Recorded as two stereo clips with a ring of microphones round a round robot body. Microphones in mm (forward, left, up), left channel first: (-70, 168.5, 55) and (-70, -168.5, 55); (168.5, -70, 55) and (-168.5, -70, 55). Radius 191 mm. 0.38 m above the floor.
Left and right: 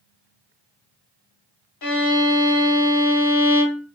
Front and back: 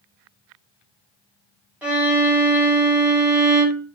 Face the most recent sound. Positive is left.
turn(degrees=95)